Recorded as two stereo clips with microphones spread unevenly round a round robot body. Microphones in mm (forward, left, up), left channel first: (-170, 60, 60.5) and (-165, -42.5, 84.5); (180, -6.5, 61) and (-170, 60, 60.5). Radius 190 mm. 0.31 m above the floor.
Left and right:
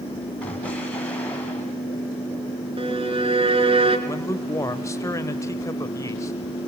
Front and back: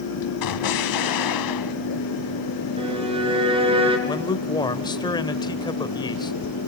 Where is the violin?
115° right, 3.5 m.